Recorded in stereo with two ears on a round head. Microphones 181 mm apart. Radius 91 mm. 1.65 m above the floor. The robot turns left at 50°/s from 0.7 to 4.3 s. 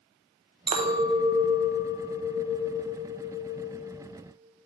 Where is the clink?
120° right, 0.6 m; by 3.8 s 85° left, 0.6 m.